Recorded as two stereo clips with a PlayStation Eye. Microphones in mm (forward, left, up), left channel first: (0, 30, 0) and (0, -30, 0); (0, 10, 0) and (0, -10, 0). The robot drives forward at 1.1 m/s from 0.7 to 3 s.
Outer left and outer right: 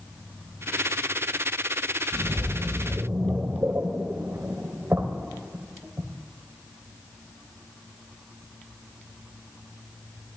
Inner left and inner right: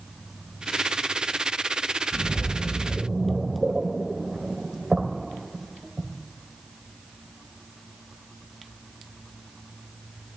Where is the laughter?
No laughter in this recording.